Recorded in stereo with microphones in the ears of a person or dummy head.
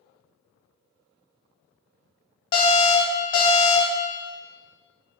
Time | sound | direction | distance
2.5 | an alarm | 25° left (ahead or behind) | 0.9 m